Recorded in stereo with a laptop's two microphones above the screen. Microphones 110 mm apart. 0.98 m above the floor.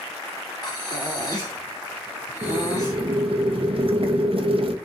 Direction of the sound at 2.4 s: 55° right (ahead or behind).